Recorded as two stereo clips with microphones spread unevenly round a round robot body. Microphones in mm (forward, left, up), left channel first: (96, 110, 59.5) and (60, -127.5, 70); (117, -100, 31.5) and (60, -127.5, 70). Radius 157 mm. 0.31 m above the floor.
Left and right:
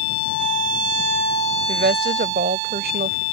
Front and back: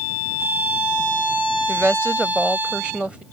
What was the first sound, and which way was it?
A woman speaking, 55° right.